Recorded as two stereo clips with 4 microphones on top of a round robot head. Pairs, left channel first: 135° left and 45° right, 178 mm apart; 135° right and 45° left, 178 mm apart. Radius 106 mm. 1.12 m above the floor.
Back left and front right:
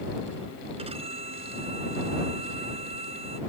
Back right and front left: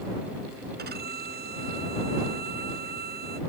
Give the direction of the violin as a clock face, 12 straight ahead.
12 o'clock.